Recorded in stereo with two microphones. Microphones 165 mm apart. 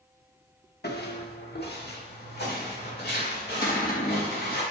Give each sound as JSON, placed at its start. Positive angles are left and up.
{"t": 0.8, "sound": "footsteps", "side_deg": 80, "distance_m": 1.3}
{"t": 3.6, "sound": "a cupboard door", "side_deg": 60, "distance_m": 1.7}